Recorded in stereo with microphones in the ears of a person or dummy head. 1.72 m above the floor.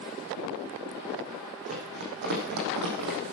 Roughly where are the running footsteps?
Right.